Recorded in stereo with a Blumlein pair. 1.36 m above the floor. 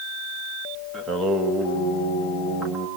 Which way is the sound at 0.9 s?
20° right.